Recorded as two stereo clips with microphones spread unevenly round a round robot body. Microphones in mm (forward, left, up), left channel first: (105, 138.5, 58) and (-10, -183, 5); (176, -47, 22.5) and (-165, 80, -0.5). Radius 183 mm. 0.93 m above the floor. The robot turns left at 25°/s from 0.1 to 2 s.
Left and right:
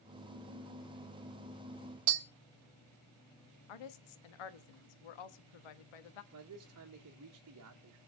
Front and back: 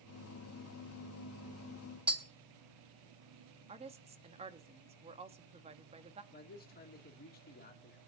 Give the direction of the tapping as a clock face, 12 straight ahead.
4 o'clock.